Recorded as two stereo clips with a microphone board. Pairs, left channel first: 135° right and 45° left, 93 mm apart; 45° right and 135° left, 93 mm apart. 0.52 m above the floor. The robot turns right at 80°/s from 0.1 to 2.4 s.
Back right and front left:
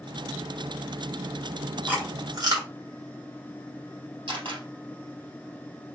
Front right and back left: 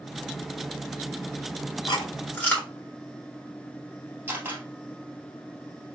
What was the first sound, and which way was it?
Chewing, 25° right.